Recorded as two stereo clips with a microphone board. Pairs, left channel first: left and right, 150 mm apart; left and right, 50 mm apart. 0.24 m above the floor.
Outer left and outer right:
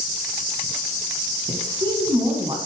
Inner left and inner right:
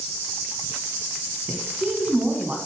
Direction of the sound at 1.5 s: 35° right (ahead or behind).